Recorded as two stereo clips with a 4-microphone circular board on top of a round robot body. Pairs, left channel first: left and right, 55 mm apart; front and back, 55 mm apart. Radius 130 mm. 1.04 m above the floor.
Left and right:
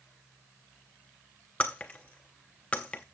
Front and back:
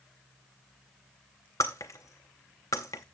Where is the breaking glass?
20° left, 0.5 m.